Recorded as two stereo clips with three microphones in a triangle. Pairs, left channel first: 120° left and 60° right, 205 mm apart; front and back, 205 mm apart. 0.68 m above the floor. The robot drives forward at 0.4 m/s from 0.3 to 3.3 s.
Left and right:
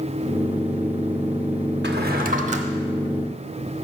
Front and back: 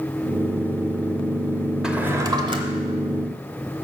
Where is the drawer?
95° right, 0.7 m; by 3.9 s 135° right, 0.9 m.